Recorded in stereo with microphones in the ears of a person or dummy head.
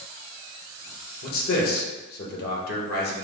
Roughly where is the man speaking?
Left.